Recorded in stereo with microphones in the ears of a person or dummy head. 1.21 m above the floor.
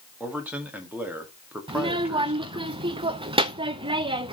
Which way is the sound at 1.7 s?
25° right (ahead or behind).